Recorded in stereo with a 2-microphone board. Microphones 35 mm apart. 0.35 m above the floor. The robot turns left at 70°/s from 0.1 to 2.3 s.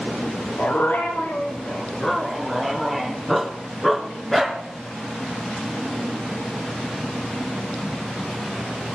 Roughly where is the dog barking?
Behind left.